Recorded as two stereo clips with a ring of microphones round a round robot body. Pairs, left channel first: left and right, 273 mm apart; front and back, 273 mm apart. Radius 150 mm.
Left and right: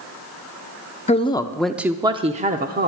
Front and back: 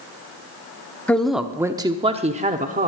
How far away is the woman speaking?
About 0.8 m.